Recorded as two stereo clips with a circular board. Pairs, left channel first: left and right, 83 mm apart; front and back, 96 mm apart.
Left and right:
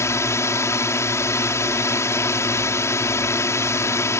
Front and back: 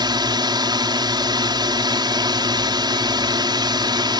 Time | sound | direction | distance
0.0 | a drone | 140° left | ?